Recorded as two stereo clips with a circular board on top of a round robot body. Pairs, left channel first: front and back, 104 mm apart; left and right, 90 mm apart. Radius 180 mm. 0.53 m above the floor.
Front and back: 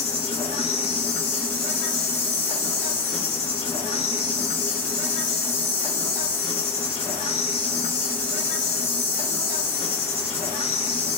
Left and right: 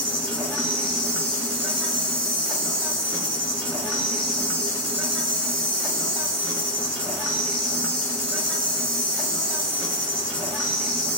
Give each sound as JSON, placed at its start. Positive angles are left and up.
{"t": 0.0, "sound": "an insect", "azimuth_deg": 10, "distance_m": 2.0}